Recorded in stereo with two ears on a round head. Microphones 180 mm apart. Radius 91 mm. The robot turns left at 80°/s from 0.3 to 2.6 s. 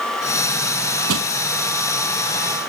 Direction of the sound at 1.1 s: 85° right.